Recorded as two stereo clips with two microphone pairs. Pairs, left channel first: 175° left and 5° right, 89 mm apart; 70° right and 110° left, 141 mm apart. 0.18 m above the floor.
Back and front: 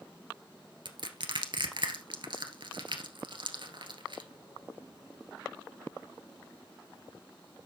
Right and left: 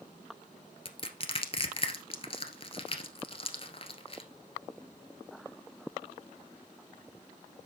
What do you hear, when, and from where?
0.8 s crushing: 25° right, 1.5 m